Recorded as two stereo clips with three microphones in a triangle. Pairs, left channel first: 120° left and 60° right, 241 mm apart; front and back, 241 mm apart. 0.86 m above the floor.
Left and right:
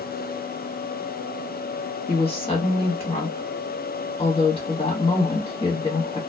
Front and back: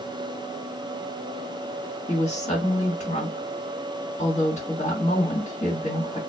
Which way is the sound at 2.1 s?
55° left.